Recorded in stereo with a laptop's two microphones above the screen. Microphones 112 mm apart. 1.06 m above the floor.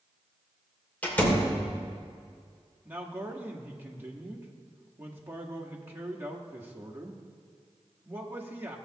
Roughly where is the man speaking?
Centre.